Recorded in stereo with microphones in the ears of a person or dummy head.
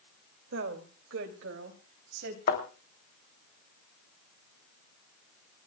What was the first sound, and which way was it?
A woman speaking, 75° right (ahead or behind).